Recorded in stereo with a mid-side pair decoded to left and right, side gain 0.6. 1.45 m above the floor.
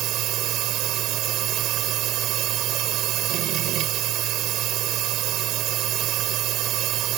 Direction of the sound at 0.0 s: 60° right.